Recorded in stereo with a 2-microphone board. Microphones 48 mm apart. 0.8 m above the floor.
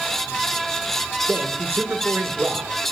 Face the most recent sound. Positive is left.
turn(degrees=-50)  # may be behind; listen again after turning